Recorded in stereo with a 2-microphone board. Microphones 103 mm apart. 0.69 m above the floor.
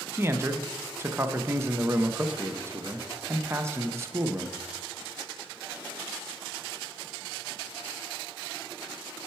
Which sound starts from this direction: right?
A man speaking, at 0.1 s.